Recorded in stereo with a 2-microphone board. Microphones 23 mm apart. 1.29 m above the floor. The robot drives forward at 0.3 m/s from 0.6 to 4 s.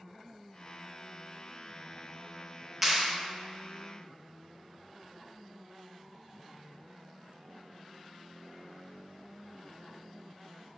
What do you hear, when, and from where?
2.8 s a clap: 10° right (ahead or behind), 1.1 m